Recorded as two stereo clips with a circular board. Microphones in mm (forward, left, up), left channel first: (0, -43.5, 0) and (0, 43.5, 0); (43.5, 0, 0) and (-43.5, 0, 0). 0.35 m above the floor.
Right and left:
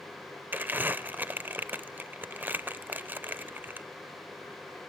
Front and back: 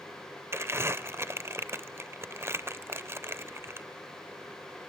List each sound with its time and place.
0.5 s crumpling: 140° left, 0.6 m